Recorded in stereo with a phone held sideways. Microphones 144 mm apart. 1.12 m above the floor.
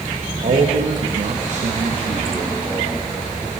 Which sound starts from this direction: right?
A man speaking, at 0.4 s.